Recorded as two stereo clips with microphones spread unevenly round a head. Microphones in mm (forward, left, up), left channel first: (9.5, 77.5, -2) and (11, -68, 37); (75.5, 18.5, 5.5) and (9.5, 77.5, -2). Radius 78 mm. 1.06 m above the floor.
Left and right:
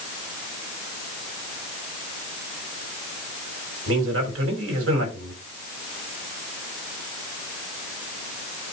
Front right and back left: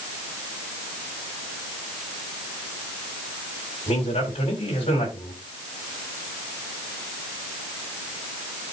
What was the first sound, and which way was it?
A man speaking, 95° right.